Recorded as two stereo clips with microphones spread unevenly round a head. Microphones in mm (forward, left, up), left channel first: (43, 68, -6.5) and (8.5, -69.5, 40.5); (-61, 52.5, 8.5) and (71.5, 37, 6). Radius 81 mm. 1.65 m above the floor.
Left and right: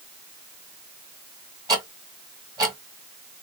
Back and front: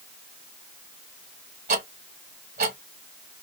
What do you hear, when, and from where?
1.7 s ticking: 50° right, 1.7 m